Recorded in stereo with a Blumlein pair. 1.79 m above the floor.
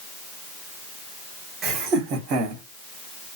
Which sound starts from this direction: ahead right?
Laughter, at 1.6 s.